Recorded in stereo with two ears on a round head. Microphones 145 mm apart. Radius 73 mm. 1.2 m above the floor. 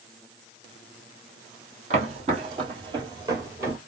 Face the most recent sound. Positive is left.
turn(degrees=-15)  # may be behind; listen again after turning